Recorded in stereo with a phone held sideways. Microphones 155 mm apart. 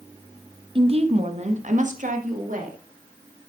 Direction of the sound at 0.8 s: 35° right (ahead or behind).